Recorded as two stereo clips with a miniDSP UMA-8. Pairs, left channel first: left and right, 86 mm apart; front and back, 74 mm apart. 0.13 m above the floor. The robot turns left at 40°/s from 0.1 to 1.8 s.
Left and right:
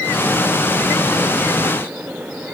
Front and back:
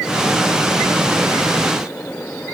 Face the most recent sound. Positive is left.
No sound to turn to.